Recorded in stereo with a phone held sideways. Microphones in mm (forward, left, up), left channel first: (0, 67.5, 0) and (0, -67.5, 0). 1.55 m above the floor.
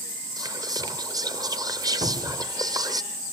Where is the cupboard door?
65° right (ahead or behind), 4 m.